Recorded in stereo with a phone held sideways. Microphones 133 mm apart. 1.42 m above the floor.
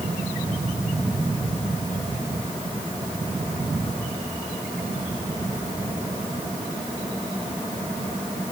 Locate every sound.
Only background noise.